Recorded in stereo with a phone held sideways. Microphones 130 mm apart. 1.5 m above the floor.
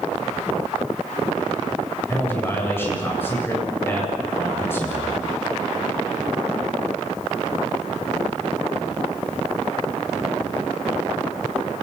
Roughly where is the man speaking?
Centre.